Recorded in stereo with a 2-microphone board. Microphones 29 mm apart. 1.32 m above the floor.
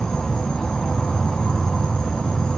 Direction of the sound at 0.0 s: 25° left (ahead or behind).